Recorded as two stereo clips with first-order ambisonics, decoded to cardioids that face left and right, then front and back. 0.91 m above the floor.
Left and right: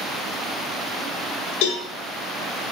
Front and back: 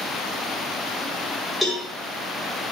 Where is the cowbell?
90° left, 1.8 m.